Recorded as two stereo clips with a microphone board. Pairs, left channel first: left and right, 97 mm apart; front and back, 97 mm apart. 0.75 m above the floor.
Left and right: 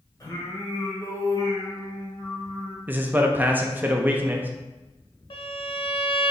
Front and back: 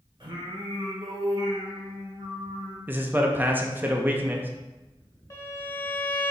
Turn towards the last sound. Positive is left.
turn(degrees=60)